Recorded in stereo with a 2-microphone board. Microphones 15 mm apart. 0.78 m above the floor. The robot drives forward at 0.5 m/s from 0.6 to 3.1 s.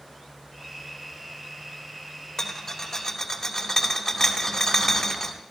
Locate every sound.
2.4 s a rattle: 30° left (ahead or behind), 1.7 m; by 5.3 s 25° left (ahead or behind), 2.0 m